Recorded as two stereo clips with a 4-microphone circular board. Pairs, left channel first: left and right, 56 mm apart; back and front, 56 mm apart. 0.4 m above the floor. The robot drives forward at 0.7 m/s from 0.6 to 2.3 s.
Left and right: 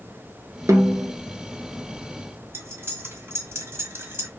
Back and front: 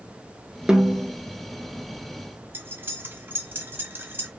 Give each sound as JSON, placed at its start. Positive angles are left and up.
{"t": 0.7, "sound": "a snare drum", "azimuth_deg": -75, "distance_m": 1.3}
{"t": 2.5, "sound": "cutlery clinking", "azimuth_deg": -45, "distance_m": 1.3}